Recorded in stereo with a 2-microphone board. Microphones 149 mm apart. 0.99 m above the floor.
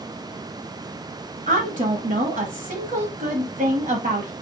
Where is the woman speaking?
60° right (ahead or behind), 1.3 m.